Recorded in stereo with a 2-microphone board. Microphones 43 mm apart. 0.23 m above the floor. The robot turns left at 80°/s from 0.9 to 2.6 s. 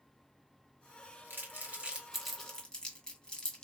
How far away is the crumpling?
About 1.3 m.